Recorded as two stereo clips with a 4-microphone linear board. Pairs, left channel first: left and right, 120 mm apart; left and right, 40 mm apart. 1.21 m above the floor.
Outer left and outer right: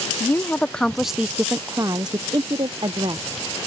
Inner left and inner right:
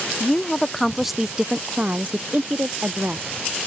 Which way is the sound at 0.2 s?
20° left (ahead or behind).